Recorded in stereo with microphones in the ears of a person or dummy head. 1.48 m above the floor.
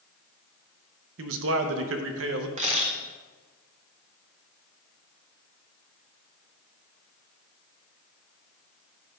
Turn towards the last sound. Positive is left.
turn(degrees=-35)  # may be behind; listen again after turning